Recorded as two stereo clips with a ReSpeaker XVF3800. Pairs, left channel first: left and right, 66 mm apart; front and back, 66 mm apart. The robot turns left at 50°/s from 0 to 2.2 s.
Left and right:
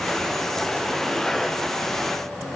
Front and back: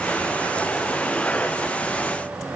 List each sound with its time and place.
Only background noise.